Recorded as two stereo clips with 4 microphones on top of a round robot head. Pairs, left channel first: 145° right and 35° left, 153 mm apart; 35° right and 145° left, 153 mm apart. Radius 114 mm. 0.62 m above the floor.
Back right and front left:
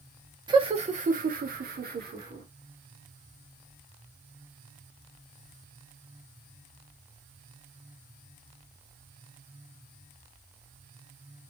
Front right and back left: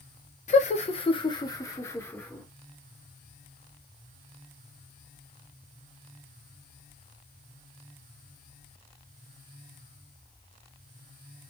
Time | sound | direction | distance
0.5 | laughter | 20° right | 0.8 m